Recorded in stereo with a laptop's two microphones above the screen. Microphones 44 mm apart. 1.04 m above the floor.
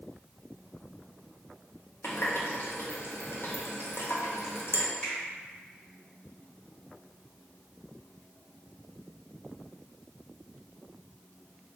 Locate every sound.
2.0 s a running tap: 60° left (ahead or behind), 0.6 m
5.0 s a finger snap: 15° left (ahead or behind), 1.6 m